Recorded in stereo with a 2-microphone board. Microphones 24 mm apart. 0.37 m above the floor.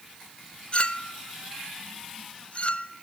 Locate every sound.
0.7 s a clink: 45° left (ahead or behind), 0.5 m